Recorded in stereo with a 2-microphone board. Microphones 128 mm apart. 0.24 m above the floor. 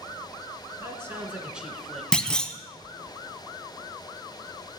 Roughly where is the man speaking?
Right.